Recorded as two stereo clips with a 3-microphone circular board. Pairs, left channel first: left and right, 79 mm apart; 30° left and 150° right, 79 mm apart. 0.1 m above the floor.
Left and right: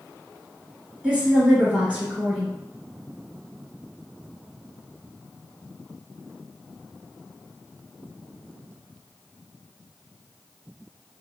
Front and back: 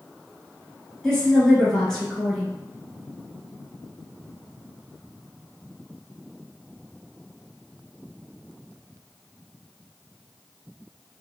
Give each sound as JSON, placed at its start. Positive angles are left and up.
{"t": 1.0, "sound": "a woman speaking", "azimuth_deg": -45, "distance_m": 1.1}